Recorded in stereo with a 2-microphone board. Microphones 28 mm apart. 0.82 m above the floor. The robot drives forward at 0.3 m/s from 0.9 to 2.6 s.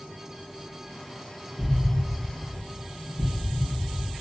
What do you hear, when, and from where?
1.6 s an explosion: 55° left (ahead or behind), 1.9 m; by 4.2 s 60° left (ahead or behind), 1.8 m